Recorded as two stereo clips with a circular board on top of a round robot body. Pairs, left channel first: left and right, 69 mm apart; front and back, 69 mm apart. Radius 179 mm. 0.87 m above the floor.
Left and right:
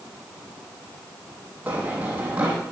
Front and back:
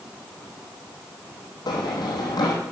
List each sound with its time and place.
1.7 s running footsteps: 20° right, 2.5 m